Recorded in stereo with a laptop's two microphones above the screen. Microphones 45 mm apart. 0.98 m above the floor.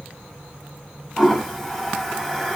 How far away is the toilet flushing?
About 0.9 m.